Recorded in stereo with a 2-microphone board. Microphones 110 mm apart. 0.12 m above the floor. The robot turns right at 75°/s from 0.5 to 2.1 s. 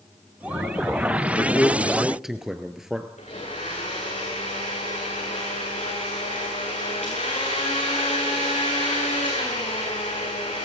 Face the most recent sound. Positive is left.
turn(degrees=85)